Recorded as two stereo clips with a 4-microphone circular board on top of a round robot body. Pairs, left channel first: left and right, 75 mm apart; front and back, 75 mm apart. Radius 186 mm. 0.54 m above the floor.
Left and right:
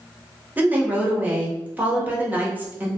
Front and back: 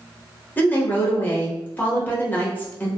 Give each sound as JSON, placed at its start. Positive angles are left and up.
{"t": 0.6, "sound": "a woman speaking", "azimuth_deg": -40, "distance_m": 1.2}